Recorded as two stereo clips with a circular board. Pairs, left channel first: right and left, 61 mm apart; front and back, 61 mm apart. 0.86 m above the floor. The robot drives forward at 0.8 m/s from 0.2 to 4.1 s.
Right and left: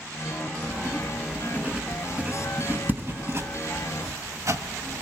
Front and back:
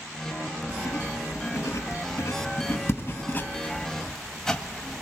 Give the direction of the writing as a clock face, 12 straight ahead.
11 o'clock.